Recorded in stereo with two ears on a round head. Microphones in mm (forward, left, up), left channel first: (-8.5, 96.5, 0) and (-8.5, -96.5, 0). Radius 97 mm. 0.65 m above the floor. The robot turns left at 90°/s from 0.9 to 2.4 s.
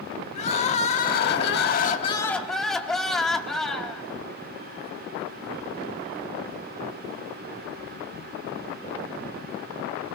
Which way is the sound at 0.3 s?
135° left.